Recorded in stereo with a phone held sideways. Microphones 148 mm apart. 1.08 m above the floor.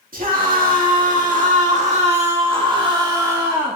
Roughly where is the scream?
Right.